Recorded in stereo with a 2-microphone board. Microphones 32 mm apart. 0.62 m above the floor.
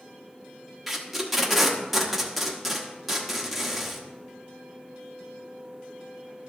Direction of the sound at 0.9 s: 5° right (ahead or behind).